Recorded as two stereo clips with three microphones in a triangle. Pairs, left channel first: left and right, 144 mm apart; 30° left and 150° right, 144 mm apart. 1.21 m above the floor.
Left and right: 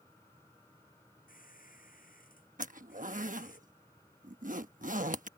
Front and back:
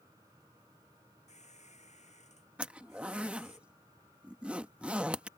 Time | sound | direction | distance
1.3 | a squeak | 70° left | ?
2.6 | a zipper | 65° right | ?